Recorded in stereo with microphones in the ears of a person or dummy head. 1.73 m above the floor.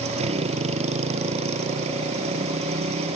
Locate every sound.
0.0 s a motorcycle: 35° right (ahead or behind)